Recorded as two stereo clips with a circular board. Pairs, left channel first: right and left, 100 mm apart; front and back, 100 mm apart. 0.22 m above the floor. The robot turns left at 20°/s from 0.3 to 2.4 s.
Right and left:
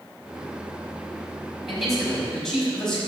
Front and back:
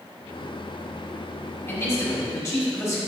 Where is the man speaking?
5° left, 1.5 m; by 3.0 s 10° right, 1.5 m.